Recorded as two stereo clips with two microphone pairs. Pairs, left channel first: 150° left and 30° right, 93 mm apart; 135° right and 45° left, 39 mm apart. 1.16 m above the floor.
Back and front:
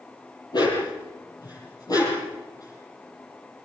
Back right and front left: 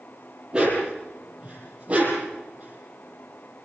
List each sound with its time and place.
0.5 s a dog barking: 110° left, 8.5 m; by 3.6 s 95° left, 10 m